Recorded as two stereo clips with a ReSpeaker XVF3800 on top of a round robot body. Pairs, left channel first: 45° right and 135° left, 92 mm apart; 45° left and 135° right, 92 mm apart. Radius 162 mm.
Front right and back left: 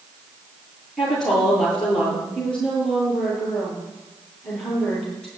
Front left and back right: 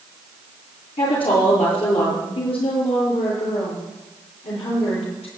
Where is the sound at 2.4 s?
35° left, 9.5 m.